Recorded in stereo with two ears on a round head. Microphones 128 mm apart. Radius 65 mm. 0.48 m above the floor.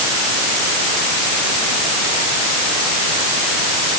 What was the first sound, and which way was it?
Only background noise.